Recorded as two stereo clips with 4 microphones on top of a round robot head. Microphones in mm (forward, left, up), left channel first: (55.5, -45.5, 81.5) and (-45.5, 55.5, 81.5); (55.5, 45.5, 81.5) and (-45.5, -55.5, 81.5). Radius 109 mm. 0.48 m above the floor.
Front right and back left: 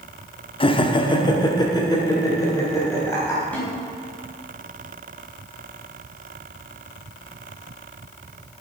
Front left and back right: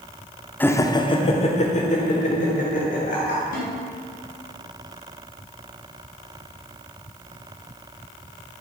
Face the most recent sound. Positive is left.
turn(degrees=35)